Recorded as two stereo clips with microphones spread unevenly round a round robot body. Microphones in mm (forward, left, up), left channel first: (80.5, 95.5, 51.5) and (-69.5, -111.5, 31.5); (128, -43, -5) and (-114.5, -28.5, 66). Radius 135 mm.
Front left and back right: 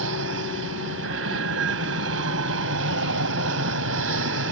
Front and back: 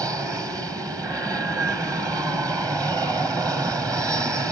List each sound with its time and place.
0.0 s an aircraft: 100° right